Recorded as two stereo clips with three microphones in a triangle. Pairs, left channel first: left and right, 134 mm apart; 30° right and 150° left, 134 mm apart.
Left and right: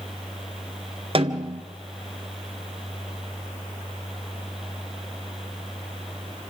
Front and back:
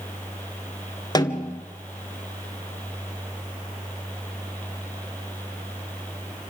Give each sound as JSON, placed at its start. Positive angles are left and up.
{"t": 1.1, "sound": "a snare drum", "azimuth_deg": -75, "distance_m": 1.0}